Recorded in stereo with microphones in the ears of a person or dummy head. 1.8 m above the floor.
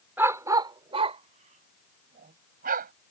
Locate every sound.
0.2 s a dog barking: 5° right (ahead or behind); by 2.9 s 45° right (ahead or behind)